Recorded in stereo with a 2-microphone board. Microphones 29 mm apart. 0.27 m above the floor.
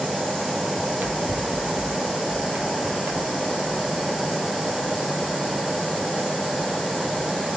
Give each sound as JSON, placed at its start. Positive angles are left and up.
{"t": 0.8, "sound": "running footsteps", "side_deg": -60, "distance_m": 2.5}